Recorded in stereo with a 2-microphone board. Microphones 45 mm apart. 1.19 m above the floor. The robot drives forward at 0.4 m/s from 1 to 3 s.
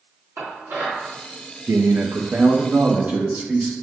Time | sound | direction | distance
0.4 | dishes clattering | 70° right (ahead or behind) | 1.8 m
1.7 | a man speaking | 70° right (ahead or behind) | 0.6 m